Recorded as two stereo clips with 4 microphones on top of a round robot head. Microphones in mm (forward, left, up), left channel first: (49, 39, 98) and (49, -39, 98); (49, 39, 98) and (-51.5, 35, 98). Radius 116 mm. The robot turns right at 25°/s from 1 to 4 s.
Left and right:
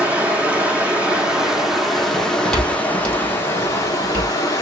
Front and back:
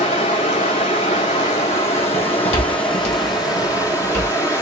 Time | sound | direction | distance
0.0 | running water | 20° right | 0.9 m
2.1 | footsteps | 5° left | 2.5 m